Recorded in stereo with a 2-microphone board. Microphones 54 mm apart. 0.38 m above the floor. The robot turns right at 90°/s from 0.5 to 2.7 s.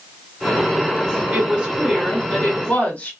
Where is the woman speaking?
70° right, 1.3 m; by 3.1 s 55° left, 1.3 m.